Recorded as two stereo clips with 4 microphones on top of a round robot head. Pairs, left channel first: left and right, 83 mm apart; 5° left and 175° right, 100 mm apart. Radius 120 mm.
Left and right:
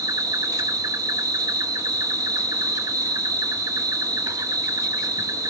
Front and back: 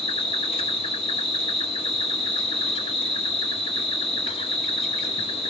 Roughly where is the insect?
Ahead right.